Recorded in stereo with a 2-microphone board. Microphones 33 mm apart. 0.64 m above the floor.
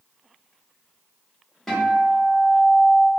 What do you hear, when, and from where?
1.7 s a guitar: 10° left (ahead or behind), 1.5 m